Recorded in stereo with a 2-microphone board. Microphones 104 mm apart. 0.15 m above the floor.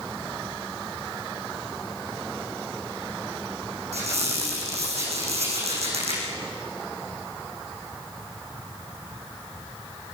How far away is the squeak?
About 7 m.